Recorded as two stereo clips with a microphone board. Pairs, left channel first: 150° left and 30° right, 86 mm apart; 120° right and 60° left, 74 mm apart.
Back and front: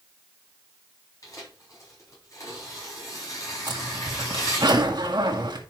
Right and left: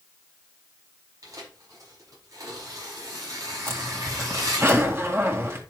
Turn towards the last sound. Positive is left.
turn(degrees=5)